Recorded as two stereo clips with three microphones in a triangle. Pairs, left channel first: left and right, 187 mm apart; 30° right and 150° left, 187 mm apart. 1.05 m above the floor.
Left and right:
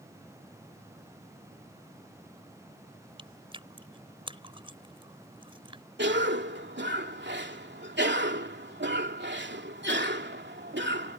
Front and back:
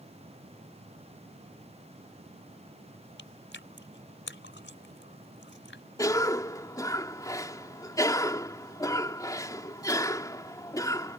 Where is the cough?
100° right.